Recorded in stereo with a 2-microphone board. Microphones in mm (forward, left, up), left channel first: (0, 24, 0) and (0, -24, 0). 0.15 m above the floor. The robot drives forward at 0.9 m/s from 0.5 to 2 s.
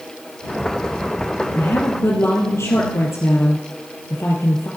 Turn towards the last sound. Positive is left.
turn(degrees=65)  # may be behind; listen again after turning